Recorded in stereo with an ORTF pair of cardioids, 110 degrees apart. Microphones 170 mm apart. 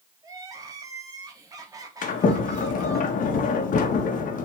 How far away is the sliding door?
About 1.7 m.